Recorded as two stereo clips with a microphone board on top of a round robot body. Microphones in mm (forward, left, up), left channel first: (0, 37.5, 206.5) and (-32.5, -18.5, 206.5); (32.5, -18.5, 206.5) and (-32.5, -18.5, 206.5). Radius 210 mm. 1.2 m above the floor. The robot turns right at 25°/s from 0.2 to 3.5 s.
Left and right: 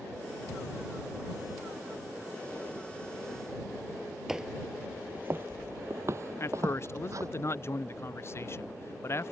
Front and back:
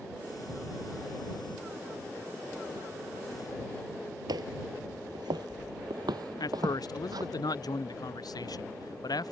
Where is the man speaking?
15° left.